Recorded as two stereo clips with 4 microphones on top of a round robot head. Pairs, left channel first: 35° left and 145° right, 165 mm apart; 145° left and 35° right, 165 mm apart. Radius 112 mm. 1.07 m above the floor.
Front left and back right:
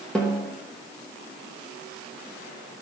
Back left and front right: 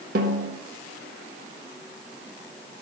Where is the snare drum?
50° right, 1.0 m.